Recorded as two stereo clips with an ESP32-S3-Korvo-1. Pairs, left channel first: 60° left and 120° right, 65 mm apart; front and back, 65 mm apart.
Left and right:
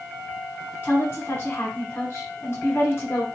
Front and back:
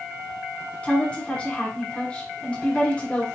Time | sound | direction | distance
0.8 | a woman speaking | 55° left | 1.5 m